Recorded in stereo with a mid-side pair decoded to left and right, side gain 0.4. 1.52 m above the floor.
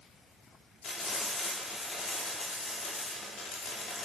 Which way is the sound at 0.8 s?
60° left.